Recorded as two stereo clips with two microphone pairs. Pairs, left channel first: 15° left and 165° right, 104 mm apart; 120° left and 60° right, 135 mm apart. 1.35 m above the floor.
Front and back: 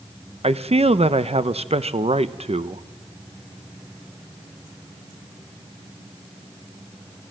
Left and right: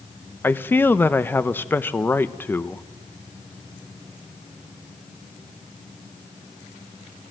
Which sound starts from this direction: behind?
A man speaking, at 0.4 s.